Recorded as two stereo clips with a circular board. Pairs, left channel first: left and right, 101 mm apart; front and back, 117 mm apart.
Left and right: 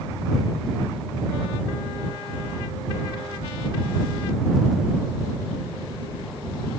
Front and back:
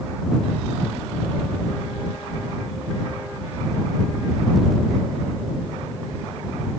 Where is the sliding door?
I don't hear a sliding door.